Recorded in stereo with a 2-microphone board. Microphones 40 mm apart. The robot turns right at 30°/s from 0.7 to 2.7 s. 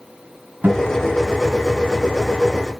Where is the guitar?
50° right (ahead or behind), 2.5 m; by 1.0 s 40° right (ahead or behind), 2.5 m.